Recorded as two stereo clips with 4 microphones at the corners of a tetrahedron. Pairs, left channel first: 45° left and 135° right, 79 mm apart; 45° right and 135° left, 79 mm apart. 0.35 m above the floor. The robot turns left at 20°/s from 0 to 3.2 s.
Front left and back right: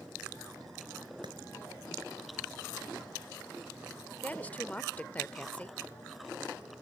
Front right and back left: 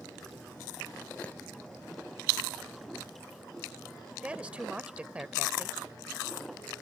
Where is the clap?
120° right.